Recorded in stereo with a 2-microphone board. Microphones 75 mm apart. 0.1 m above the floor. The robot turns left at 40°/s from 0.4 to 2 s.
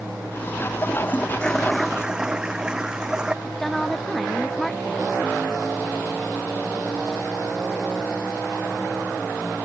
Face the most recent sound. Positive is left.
turn(degrees=5)  # may be behind; listen again after turning